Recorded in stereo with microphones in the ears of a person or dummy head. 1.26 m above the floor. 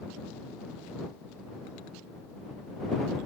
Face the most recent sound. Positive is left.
No sound to turn to.